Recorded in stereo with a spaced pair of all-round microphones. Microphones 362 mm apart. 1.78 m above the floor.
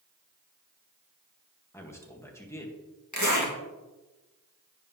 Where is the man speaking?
10° left (ahead or behind), 1.7 m.